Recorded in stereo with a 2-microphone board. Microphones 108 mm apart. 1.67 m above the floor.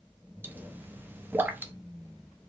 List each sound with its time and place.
0.4 s a pop: 20° right (ahead or behind), 0.6 m